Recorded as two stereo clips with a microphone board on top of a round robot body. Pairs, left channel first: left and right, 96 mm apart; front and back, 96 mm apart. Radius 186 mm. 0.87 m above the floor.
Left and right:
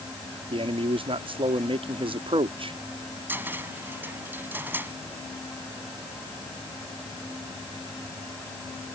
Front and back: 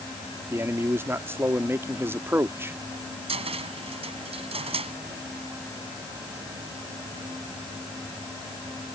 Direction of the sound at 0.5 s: 115° right.